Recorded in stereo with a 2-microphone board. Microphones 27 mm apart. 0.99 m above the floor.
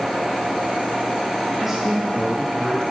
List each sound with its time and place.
1.6 s a man speaking: 20° right (ahead or behind), 0.6 m; by 2.8 s 5° right (ahead or behind), 2.0 m